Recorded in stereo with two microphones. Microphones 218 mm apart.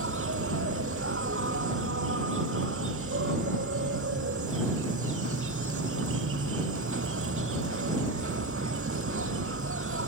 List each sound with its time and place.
0.0 s an insect: 85° right